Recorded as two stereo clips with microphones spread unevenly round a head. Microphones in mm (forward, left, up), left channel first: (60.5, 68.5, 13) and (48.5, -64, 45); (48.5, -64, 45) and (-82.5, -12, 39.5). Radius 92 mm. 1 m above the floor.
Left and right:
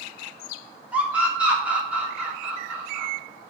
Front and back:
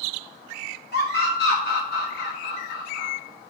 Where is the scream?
15° right, 2 m.